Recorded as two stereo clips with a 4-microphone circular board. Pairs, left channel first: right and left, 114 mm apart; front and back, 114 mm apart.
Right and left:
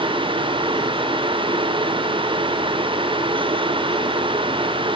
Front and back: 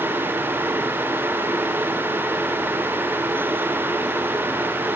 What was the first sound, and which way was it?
Only background noise.